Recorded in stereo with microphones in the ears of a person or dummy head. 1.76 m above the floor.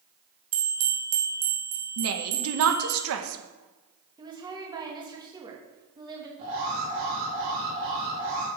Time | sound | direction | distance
0.5 | a bell | 75° right (ahead or behind) | 1.9 m
2.0 | a woman speaking | 70° right (ahead or behind) | 1.7 m
4.2 | a woman speaking | 20° right (ahead or behind) | 3 m
6.4 | an alarm | 35° right (ahead or behind) | 4.5 m